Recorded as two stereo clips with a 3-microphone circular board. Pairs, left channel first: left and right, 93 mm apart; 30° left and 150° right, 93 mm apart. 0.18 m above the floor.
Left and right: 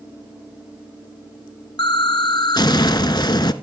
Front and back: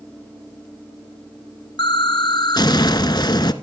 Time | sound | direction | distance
1.8 | an explosion | 60° left | 0.9 m